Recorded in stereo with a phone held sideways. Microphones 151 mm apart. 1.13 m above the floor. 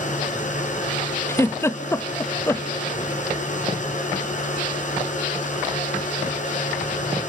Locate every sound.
0.0 s a machine running: 50° left (ahead or behind), 3.5 m
1.3 s a giggle: 15° left (ahead or behind), 0.8 m